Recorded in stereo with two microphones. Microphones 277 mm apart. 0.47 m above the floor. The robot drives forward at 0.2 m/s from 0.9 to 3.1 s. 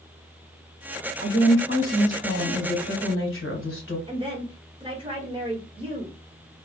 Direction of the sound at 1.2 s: 45° left (ahead or behind).